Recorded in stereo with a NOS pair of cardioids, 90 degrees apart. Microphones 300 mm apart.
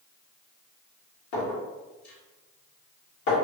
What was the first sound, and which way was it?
A clink, 65° left.